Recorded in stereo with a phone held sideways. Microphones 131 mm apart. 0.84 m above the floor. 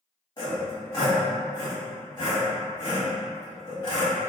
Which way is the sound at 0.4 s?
35° left (ahead or behind).